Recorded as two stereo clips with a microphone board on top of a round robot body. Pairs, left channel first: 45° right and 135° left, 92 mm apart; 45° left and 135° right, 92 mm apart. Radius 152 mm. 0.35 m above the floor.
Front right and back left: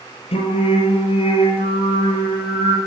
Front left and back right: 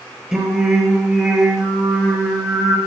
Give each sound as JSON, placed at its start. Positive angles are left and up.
{"t": 0.3, "sound": "singing", "azimuth_deg": -55, "distance_m": 4.0}